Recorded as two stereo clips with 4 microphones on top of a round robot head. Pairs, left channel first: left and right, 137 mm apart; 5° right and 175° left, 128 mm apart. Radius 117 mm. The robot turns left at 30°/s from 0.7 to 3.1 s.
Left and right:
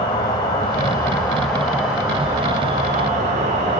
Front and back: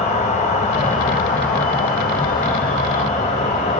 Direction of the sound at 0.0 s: 25° left.